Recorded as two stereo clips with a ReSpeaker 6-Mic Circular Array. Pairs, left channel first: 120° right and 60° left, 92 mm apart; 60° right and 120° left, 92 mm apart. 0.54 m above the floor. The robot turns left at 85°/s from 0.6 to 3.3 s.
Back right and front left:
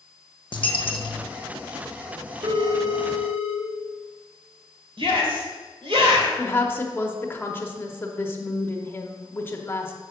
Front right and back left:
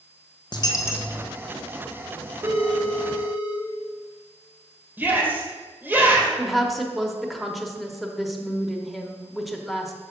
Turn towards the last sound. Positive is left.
turn(degrees=-150)